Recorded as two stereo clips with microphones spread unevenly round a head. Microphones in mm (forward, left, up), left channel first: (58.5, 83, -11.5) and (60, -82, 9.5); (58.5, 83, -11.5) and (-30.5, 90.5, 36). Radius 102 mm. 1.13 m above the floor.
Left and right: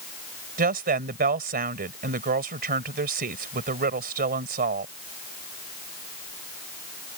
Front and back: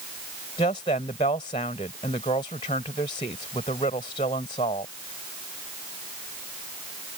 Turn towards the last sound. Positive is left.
turn(degrees=-60)